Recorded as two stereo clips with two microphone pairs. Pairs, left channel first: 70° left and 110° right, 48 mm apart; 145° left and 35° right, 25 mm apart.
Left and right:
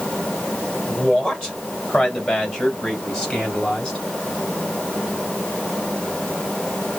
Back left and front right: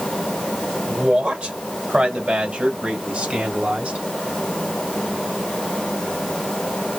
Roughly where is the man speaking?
Ahead.